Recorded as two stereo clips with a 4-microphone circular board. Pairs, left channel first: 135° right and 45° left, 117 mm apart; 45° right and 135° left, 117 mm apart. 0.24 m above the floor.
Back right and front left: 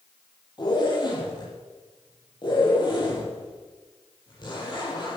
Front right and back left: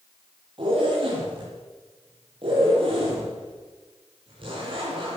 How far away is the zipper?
About 7 m.